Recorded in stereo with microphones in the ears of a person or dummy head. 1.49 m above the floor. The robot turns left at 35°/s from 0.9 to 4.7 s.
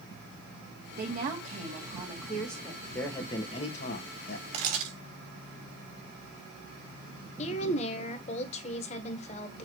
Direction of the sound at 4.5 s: 35° right (ahead or behind).